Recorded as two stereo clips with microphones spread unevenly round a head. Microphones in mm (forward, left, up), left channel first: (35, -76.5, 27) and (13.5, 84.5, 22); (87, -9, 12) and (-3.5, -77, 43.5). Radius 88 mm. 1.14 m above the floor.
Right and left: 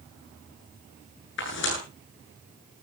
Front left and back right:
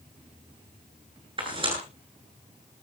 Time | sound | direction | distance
1.4 | tearing paper | 105° right | 9.5 m